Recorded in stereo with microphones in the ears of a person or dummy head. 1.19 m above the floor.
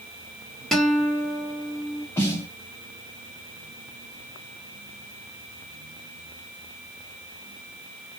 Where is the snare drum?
20° left (ahead or behind), 1.3 m.